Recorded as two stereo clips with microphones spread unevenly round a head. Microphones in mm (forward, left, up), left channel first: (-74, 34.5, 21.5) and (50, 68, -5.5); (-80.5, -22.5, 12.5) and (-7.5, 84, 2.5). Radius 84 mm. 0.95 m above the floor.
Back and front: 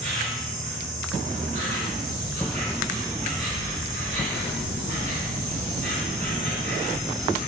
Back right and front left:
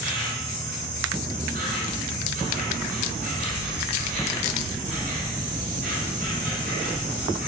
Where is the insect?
50° left, 2 m.